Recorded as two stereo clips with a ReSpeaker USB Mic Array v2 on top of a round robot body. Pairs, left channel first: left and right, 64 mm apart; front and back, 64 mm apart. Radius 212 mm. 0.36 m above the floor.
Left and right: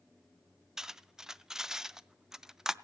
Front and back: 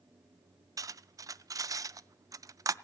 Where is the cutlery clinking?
170° right, 0.5 m.